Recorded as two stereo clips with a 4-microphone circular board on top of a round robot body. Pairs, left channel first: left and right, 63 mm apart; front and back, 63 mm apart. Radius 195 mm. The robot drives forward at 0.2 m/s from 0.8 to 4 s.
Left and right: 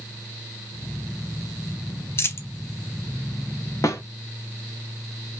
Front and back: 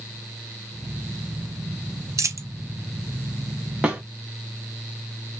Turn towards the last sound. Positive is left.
turn(degrees=115)